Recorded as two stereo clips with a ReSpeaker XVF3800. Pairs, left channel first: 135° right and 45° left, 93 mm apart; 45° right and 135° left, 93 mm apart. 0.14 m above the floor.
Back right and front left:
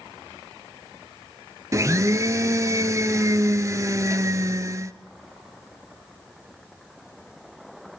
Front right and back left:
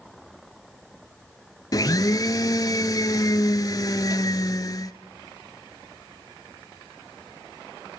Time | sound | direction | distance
1.7 | a blender | 5° right | 1.1 m